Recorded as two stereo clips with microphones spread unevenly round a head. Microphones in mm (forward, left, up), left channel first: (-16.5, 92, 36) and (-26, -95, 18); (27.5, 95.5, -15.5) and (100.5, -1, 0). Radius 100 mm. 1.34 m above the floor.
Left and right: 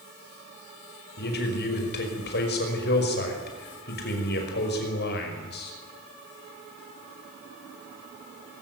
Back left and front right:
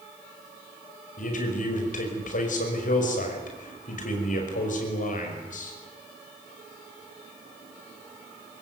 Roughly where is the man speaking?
Behind left.